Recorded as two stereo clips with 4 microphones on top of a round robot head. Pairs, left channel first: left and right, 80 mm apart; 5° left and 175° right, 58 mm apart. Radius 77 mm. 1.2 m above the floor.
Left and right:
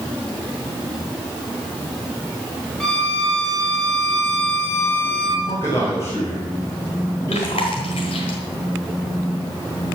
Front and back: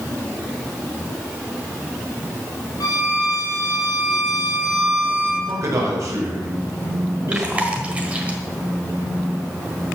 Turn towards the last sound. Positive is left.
turn(degrees=120)